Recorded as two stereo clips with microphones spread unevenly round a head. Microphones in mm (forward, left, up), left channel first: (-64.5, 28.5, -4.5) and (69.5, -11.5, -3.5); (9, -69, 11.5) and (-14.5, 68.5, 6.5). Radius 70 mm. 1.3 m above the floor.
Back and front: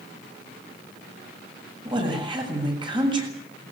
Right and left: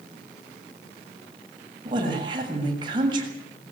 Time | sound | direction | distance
1.9 | a woman speaking | 40° left | 7 m